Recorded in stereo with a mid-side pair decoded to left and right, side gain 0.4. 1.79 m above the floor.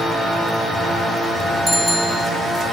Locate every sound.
1.7 s a bicycle bell: 5° left